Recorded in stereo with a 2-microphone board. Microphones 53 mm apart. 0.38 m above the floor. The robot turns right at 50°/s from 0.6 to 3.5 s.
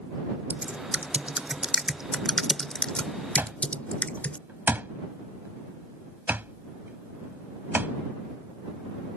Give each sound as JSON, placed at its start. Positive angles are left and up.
{"t": 0.5, "sound": "typing on a keyboard", "side_deg": -30}
{"t": 3.4, "sound": "an alarm clock", "side_deg": -45}